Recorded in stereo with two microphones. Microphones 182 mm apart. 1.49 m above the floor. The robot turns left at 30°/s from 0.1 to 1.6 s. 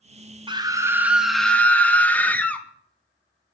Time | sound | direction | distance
0.5 | a scream | 155° right | 0.7 m